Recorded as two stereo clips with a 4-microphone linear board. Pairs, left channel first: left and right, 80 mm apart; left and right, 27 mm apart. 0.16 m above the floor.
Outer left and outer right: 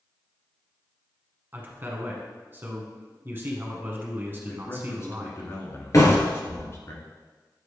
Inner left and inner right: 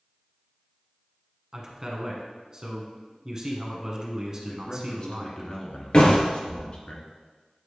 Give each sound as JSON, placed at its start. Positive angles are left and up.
{"t": 1.5, "sound": "a man speaking", "side_deg": -30, "distance_m": 1.2}
{"t": 4.4, "sound": "a man speaking", "side_deg": 40, "distance_m": 1.6}
{"t": 5.9, "sound": "a door slam", "side_deg": 45, "distance_m": 1.9}